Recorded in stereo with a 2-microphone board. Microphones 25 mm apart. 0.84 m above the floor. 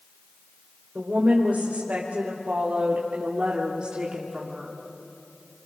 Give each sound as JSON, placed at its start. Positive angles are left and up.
{"t": 0.9, "sound": "a woman speaking", "side_deg": -75, "distance_m": 4.0}